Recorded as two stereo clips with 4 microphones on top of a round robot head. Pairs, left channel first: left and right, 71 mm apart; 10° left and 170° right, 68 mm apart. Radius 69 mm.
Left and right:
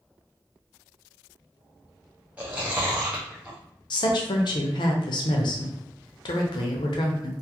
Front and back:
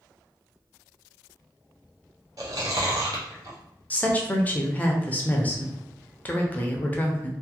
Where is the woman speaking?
75° left, 0.7 m.